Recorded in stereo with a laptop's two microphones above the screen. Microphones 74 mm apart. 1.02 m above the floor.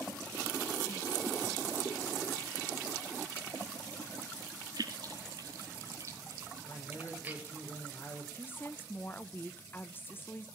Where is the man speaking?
30° left (ahead or behind), 3.5 m.